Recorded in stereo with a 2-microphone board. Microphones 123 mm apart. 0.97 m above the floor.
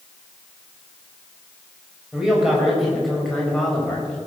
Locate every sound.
2.1 s a man speaking: 5° right (ahead or behind), 5 m; by 4.2 s 10° left (ahead or behind), 5 m